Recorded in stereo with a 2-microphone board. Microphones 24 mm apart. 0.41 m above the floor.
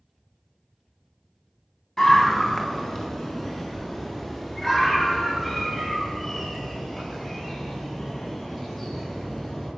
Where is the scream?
20° left (ahead or behind), 3 m; by 9.7 s 15° left (ahead or behind), 11.5 m.